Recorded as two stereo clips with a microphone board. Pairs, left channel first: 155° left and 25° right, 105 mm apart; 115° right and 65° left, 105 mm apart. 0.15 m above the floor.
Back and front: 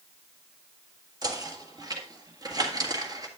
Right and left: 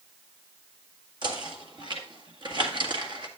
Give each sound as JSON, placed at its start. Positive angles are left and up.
{"t": 1.2, "sound": "knocking", "azimuth_deg": 25, "distance_m": 1.7}